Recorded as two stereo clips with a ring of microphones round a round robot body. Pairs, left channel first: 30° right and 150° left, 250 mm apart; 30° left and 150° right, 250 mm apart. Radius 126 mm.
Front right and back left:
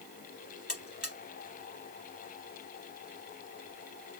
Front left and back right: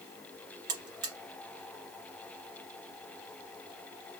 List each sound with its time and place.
0.7 s a buzzer: 120° right, 2 m